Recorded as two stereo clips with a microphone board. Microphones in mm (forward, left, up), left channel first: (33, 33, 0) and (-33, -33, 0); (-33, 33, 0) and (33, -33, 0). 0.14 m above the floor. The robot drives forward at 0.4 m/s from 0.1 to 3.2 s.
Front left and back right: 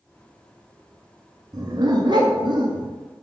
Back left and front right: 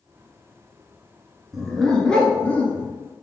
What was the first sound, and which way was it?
A dog barking, 130° right.